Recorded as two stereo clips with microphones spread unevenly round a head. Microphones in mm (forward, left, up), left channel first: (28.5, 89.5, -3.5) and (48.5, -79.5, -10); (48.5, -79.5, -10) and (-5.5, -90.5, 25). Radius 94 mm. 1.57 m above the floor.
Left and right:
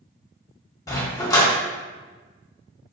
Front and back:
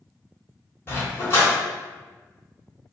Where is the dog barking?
100° left, 1.2 m.